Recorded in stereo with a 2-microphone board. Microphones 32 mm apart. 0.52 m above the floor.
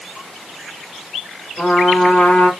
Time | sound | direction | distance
1.6 | a trumpet | 60° left (ahead or behind) | 2.5 m